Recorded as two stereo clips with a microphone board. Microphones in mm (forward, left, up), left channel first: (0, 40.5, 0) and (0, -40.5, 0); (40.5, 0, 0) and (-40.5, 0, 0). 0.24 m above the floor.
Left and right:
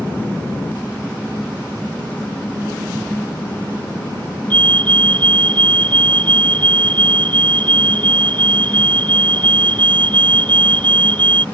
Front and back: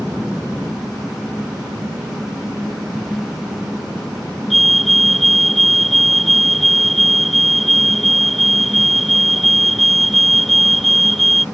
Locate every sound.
4.5 s a fire alarm: 90° left